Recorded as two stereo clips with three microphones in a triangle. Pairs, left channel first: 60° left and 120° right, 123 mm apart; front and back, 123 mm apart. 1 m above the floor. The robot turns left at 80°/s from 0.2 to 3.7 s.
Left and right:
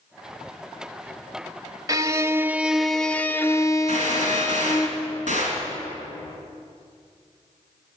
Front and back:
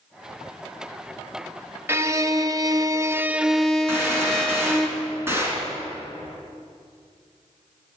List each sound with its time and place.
1.9 s a violin: 130° right, 0.6 m; by 4.9 s 85° left, 0.6 m
3.9 s a gunshot: 110° right, 3.5 m